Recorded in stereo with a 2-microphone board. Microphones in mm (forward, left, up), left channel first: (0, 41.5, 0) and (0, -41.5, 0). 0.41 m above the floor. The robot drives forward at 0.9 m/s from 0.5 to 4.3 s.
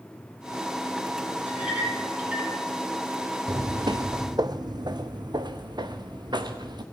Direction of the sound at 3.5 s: 40° right (ahead or behind).